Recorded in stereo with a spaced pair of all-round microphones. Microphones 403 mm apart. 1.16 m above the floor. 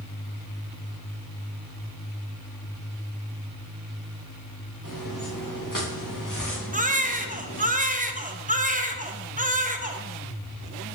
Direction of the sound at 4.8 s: 55° left (ahead or behind).